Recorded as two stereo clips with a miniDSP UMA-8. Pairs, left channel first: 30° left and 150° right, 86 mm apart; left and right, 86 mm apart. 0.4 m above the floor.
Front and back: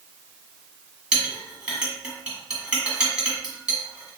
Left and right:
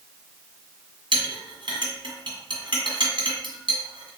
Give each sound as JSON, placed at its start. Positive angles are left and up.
{"t": 1.1, "sound": "a clink", "azimuth_deg": -75, "distance_m": 1.7}